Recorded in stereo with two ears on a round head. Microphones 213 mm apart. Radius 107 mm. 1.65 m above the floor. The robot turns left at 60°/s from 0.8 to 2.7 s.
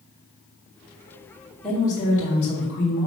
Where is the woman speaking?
Straight behind, 2 m; by 3.1 s 115° left, 2 m.